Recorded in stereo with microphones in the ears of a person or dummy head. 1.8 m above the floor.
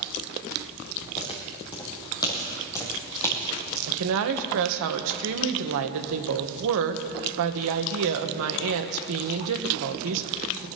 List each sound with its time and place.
1.2 s footsteps: 30° left (ahead or behind), 3 m; by 3.8 s 5° left (ahead or behind), 3 m
3.9 s a woman speaking: 65° right (ahead or behind), 1.5 m